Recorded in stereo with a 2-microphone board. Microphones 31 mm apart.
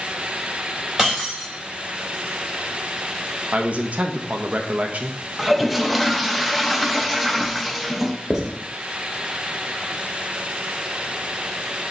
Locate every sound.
1.0 s breaking glass: 10° right (ahead or behind), 3 m
3.5 s a man speaking: 45° right (ahead or behind), 0.8 m
5.4 s a toilet flushing: centre (ahead or behind), 0.5 m
8.3 s writing: 10° right (ahead or behind), 1.5 m